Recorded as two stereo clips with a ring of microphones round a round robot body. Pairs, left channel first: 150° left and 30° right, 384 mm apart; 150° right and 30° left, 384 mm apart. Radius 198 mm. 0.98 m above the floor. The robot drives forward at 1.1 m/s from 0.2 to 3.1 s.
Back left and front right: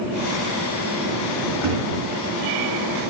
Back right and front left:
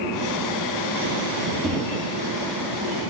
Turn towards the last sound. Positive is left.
turn(degrees=-140)